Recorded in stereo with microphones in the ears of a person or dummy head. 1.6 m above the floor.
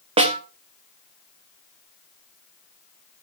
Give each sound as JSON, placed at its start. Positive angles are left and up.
{"t": 0.2, "sound": "a snare drum", "side_deg": -30, "distance_m": 1.3}